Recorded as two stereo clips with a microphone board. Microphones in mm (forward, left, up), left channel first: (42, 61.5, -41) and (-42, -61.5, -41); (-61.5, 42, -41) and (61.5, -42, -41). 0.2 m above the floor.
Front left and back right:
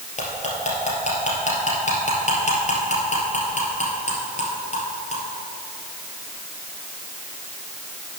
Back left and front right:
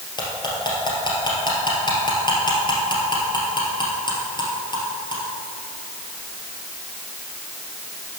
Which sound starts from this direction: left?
Cutlery clinking, at 0.2 s.